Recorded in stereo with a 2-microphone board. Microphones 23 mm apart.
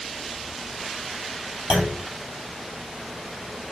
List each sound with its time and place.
1.7 s a clunk: 35° right (ahead or behind), 3 m